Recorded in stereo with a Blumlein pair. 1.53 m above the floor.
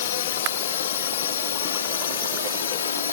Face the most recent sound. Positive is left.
turn(degrees=70)